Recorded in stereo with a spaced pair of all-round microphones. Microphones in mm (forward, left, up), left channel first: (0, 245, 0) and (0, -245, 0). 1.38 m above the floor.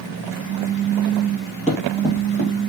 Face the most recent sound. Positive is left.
turn(degrees=30)  # may be behind; listen again after turning